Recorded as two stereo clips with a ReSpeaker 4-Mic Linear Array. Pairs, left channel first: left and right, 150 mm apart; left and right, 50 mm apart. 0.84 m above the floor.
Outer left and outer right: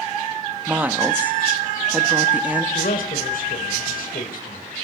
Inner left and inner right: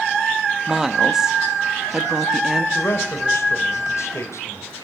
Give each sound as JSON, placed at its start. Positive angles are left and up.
{"t": 0.7, "sound": "a woman speaking", "side_deg": -10, "distance_m": 1.3}
{"t": 2.8, "sound": "a man speaking", "side_deg": 75, "distance_m": 3.0}